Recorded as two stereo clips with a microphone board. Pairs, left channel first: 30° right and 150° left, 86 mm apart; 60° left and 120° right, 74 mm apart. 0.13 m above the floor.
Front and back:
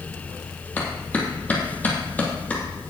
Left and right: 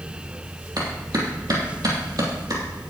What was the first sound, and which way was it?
A clap, 100° right.